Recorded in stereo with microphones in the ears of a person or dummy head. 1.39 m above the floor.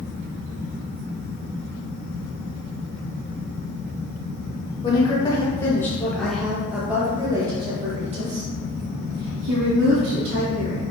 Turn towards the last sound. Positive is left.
turn(degrees=-65)  # may be behind; listen again after turning